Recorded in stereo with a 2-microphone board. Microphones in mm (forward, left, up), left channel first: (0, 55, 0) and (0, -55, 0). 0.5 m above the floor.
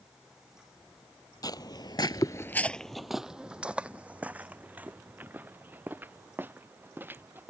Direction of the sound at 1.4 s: 35° left (ahead or behind).